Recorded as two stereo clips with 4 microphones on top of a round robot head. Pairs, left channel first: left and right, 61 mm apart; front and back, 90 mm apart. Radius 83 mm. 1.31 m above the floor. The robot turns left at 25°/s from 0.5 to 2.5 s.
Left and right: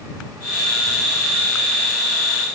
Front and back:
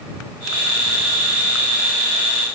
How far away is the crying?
I don't hear crying.